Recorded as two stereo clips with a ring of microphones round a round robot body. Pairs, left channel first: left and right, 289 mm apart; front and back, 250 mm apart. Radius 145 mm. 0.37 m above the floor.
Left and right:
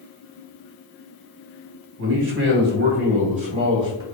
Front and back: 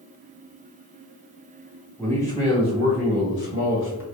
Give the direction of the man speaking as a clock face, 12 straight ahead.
3 o'clock.